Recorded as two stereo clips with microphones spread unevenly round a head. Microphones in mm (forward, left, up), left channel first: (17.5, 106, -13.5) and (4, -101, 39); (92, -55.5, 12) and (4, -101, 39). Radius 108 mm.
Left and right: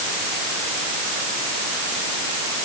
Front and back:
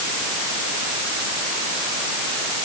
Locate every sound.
Only background noise.